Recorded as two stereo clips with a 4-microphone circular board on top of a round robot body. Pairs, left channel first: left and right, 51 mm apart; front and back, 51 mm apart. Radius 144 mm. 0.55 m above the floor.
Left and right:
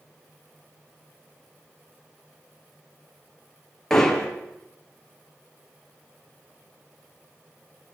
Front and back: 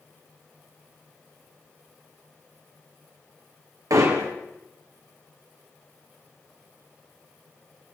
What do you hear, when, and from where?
3.9 s hammering: 170° left, 4.5 m